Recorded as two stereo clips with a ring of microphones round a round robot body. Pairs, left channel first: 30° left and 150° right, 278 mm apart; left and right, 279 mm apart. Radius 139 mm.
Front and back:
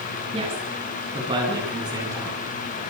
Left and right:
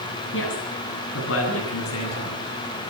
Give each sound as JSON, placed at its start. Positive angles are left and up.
{"t": 0.3, "sound": "a woman speaking", "azimuth_deg": 140, "distance_m": 10.0}